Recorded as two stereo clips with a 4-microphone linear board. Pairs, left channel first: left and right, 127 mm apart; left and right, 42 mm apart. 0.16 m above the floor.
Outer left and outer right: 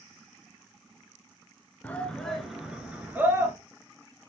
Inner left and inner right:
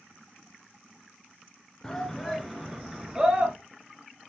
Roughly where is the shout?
Centre.